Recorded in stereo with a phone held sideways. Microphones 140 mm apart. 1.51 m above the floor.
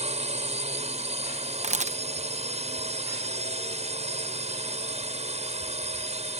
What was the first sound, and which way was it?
A drone, 50° right (ahead or behind).